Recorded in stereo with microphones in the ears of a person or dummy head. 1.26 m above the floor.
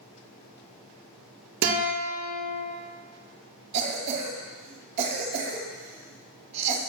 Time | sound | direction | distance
1.6 | a guitar | 60° right (ahead or behind) | 0.8 m
3.7 | a cough | 35° right (ahead or behind) | 0.8 m